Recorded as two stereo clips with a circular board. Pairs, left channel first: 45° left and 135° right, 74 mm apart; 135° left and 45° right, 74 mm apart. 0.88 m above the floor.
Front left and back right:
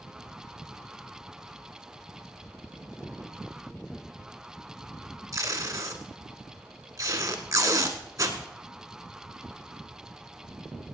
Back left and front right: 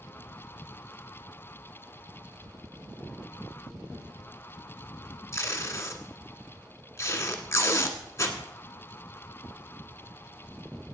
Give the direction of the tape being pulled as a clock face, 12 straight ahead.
6 o'clock.